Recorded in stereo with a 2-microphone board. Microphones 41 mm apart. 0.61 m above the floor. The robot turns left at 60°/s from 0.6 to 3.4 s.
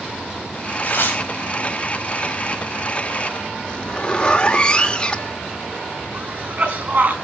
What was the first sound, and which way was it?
Tearing paper, 45° left (ahead or behind).